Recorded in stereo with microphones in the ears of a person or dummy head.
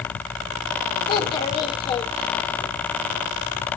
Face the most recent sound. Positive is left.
turn(degrees=25)  # may be behind; listen again after turning